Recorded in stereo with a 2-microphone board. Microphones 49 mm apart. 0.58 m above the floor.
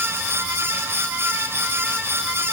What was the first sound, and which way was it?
Only background noise.